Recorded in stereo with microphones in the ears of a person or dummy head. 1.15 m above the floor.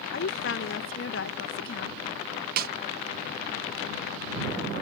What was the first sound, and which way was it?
A woman speaking, 60° left (ahead or behind).